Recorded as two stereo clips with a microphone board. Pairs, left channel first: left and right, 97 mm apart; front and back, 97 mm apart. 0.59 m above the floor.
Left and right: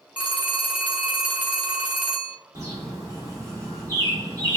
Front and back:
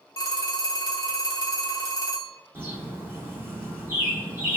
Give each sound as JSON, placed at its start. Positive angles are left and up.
{"t": 0.2, "sound": "a phone ringing", "azimuth_deg": -20, "distance_m": 0.7}
{"t": 2.5, "sound": "a bird", "azimuth_deg": -125, "distance_m": 0.9}